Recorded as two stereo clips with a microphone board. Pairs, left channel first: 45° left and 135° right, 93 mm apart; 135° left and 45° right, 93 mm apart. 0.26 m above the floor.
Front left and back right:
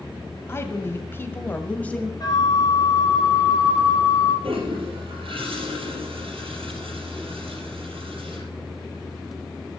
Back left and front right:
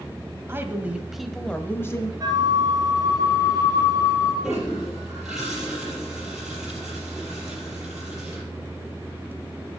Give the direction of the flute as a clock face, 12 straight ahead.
12 o'clock.